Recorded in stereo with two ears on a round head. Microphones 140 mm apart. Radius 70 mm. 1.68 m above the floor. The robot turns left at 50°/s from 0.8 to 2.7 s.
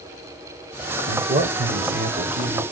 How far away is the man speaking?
About 0.8 m.